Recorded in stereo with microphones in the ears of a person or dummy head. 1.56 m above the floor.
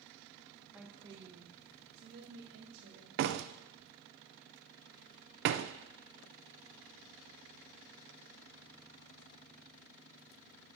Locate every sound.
0.7 s a woman speaking: 5° right (ahead or behind), 1.0 m; by 3.1 s 70° right (ahead or behind), 3 m
3.2 s a door slam: 60° right (ahead or behind), 0.6 m